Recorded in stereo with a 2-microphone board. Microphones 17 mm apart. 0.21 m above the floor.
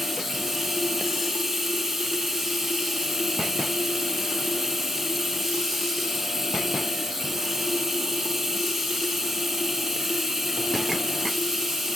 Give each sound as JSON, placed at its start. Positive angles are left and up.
{"t": 0.0, "sound": "running water", "side_deg": -10, "distance_m": 2.5}